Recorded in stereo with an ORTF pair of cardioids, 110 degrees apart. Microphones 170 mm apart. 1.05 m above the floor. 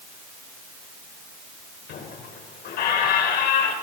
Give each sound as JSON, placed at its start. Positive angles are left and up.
{"t": 1.9, "sound": "a squeak", "azimuth_deg": 65, "distance_m": 3.0}